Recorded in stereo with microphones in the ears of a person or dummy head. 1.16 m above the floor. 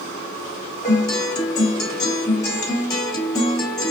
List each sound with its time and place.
0.8 s a guitar: 20° left (ahead or behind), 1.5 m